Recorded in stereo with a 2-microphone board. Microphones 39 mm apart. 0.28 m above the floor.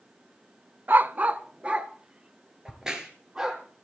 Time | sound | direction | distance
0.9 | a dog barking | 55° right (ahead or behind) | 0.6 m
2.6 | a crack | 15° right (ahead or behind) | 3 m